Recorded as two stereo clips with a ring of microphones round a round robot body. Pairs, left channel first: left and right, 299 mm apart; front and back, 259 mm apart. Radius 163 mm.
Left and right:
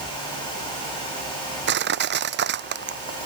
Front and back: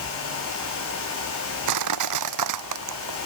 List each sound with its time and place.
1.7 s crushing: 150° right